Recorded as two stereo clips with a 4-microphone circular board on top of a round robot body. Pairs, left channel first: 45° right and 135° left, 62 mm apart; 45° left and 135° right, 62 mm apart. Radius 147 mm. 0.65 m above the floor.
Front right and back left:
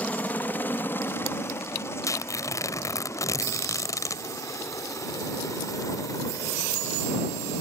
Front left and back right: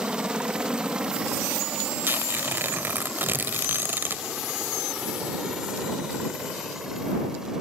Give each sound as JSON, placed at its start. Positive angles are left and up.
{"t": 0.0, "sound": "a helicopter", "azimuth_deg": -75}
{"t": 2.0, "sound": "tearing paper", "azimuth_deg": -75}